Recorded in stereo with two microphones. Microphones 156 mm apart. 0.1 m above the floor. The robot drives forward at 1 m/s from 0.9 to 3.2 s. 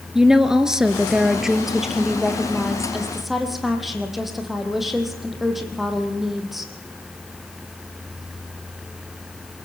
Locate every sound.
0.1 s a woman speaking: 5° right (ahead or behind), 1.3 m; by 6.7 s centre (ahead or behind), 3 m